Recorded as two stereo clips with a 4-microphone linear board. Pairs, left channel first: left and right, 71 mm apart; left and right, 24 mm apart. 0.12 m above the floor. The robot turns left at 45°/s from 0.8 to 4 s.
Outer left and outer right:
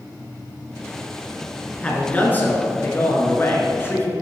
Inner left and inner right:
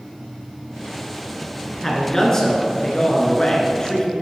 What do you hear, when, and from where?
1.8 s a man speaking: 155° left, 1.4 m; by 4.1 s 60° left, 1.4 m